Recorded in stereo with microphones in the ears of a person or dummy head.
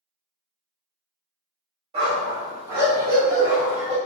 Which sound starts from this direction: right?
A dog barking, at 1.9 s.